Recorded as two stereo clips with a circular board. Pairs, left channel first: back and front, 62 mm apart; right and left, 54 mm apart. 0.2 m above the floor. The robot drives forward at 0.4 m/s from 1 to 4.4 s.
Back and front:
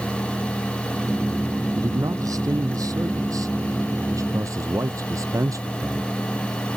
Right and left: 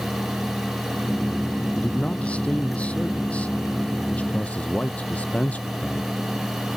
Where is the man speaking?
20° right; by 6.1 s 25° right.